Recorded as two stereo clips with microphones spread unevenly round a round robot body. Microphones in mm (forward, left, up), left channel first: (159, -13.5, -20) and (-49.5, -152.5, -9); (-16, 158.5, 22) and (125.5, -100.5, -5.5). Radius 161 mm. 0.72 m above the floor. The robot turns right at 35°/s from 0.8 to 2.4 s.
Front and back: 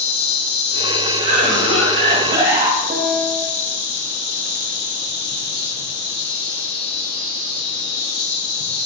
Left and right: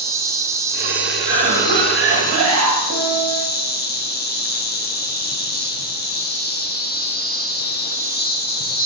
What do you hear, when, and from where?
0.0 s an insect: 10° left, 0.8 m; by 8.9 s 65° left, 0.8 m
1.2 s a cough: 135° right, 1.7 m; by 2.8 s 95° right, 1.7 m
2.9 s a piano: 85° right, 0.9 m